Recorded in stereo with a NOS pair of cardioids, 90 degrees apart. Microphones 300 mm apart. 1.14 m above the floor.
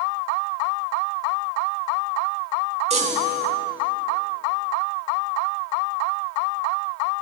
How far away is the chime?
About 1.4 m.